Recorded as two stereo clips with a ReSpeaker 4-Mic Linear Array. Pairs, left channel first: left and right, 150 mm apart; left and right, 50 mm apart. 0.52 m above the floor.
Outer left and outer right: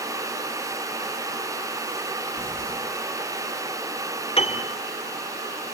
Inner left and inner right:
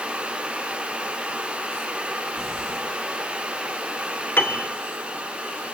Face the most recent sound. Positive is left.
turn(degrees=40)  # may be behind; listen again after turning